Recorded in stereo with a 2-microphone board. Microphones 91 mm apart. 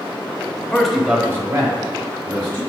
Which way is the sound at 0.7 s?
5° left (ahead or behind).